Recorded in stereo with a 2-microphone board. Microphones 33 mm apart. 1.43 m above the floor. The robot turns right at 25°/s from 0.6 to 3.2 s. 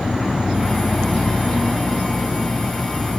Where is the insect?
160° right, 2.5 m; by 3.2 s 95° right, 2.5 m.